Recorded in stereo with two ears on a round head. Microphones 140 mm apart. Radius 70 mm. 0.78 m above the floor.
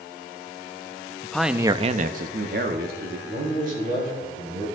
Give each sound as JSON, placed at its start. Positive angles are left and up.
{"t": 1.2, "sound": "a man speaking", "side_deg": 10, "distance_m": 0.7}
{"t": 3.3, "sound": "a man speaking", "side_deg": -55, "distance_m": 4.5}